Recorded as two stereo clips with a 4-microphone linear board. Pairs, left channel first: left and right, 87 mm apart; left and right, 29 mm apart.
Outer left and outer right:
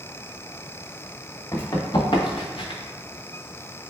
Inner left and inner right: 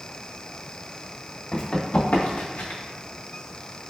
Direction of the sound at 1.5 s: 40° left (ahead or behind).